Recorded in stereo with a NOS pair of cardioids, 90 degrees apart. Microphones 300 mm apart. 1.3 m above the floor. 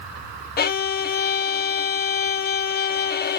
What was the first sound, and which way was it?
A violin, 35° left.